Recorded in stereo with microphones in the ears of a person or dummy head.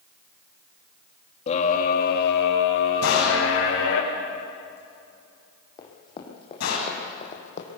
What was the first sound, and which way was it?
A scream, 35° left (ahead or behind).